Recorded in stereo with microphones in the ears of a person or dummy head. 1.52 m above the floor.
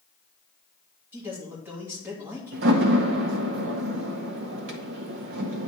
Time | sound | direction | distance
1.1 | a man speaking | 5° right (ahead or behind) | 2.5 m
2.5 | a door slam | 60° right (ahead or behind) | 0.8 m